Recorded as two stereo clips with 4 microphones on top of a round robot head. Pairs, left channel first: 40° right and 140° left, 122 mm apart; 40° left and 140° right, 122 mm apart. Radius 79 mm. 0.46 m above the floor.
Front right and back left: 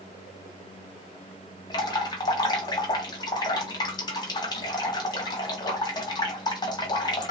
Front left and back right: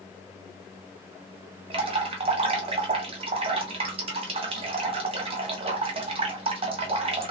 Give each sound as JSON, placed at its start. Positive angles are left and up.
{"t": 1.7, "sound": "dripping", "azimuth_deg": -100, "distance_m": 1.1}